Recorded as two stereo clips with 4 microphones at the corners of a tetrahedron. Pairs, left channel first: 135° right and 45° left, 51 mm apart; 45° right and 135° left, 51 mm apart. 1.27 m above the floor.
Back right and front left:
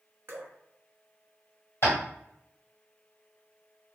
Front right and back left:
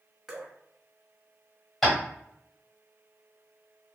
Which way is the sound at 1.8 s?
125° right.